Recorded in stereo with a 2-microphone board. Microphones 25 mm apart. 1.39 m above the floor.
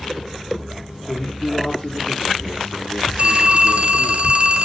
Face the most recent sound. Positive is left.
turn(degrees=-50)  # may be behind; listen again after turning